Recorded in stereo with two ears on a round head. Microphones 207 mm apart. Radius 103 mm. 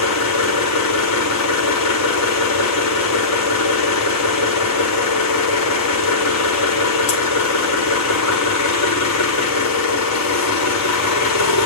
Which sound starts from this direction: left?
An engine running, at 0.0 s.